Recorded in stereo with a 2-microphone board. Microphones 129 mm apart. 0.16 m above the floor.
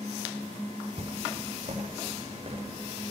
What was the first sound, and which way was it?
Footsteps, 65° right (ahead or behind).